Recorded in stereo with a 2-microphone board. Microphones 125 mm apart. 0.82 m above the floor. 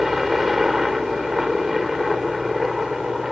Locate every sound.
0.0 s a helicopter: centre (ahead or behind)